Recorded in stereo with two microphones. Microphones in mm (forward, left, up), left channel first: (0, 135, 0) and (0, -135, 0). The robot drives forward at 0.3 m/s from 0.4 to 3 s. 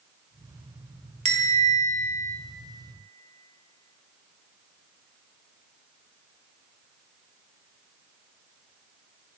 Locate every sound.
1.2 s a bell: 25° right (ahead or behind), 0.6 m; by 2.4 s 30° right (ahead or behind), 0.6 m